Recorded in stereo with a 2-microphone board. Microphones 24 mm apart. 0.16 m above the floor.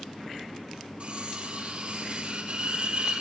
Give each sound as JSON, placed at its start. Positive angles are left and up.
{"t": 1.0, "sound": "cutlery clinking", "side_deg": -50, "distance_m": 3.0}